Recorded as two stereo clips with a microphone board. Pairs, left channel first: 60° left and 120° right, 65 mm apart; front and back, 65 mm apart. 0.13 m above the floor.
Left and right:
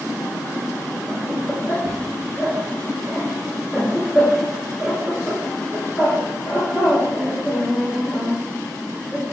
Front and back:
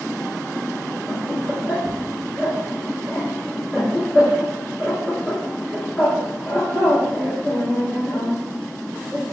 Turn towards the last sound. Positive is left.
turn(degrees=-75)